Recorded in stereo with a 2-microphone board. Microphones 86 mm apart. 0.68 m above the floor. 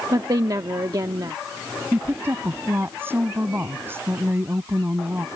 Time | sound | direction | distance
0.1 | a woman speaking | 50° right (ahead or behind) | ?
1.9 | a woman speaking | 25° right (ahead or behind) | ?